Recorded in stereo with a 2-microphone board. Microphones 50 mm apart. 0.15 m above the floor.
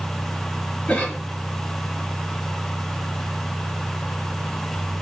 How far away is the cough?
About 1.1 m.